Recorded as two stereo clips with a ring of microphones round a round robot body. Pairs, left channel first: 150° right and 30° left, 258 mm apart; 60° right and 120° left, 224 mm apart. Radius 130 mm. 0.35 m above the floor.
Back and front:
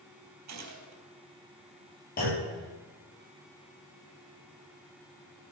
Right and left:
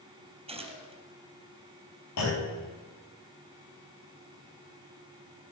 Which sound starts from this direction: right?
A clunk, at 2.2 s.